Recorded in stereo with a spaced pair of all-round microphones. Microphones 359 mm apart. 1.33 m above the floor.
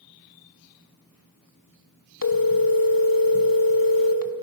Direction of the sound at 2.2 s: 70° left (ahead or behind).